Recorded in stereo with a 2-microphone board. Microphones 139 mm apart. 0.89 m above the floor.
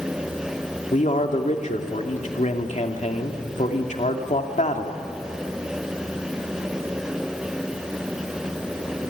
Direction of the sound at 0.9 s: 65° left (ahead or behind).